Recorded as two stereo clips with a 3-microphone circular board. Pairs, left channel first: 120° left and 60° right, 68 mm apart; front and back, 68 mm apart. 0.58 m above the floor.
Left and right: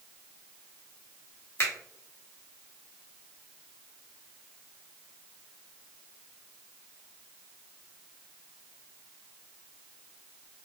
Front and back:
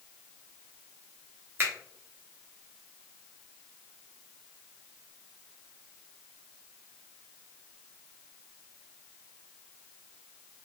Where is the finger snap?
145° left, 1.1 m.